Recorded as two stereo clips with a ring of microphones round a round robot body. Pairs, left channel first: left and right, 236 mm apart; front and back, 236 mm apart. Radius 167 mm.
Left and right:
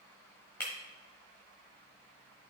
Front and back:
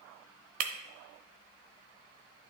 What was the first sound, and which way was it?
Breaking glass, 170° left.